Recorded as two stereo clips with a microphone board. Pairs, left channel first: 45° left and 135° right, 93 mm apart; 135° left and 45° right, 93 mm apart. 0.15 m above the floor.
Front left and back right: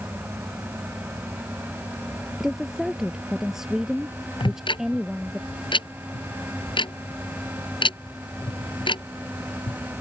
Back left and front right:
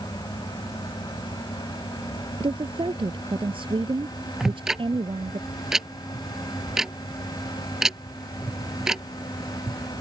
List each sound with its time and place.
2.4 s a woman speaking: 50° right
4.4 s ticking: 40° left